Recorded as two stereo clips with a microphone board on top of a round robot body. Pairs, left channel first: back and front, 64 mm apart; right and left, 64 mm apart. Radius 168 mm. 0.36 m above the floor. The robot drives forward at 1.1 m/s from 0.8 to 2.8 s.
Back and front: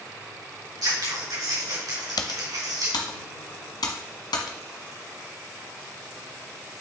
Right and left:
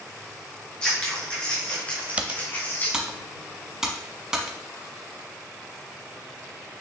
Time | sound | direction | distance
0.8 | scissors | 15° right | 4.5 m
2.2 | typing on a keyboard | 160° left | 0.7 m